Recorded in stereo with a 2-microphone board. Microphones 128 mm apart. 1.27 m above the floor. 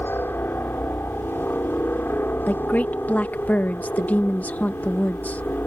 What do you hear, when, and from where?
0.0 s a helicopter: 15° left (ahead or behind)
2.5 s a woman speaking: 15° left (ahead or behind)